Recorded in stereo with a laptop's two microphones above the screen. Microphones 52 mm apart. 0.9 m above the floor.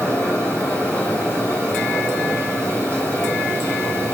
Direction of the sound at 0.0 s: 25° left (ahead or behind).